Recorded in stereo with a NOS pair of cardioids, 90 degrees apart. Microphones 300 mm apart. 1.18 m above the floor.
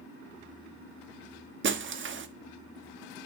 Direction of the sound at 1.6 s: 40° right.